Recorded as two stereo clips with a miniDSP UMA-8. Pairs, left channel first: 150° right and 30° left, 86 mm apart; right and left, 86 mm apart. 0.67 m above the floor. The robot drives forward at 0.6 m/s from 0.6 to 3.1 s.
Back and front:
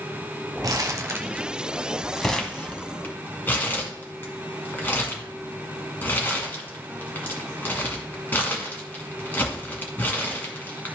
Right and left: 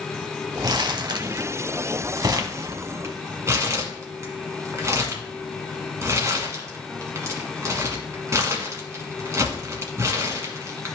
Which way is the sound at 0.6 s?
65° left.